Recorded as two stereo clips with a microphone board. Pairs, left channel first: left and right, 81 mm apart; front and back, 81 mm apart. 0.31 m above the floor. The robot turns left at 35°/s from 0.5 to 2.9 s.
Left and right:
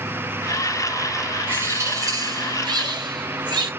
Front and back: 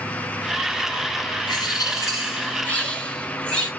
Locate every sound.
1.5 s a bird: 25° right, 1.8 m; by 3.7 s 75° right, 1.8 m